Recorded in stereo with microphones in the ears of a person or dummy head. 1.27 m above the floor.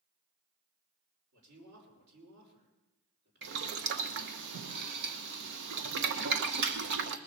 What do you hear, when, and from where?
1.3 s a man speaking: 55° right (ahead or behind), 4.5 m
3.4 s boiling: 60° right (ahead or behind), 0.8 m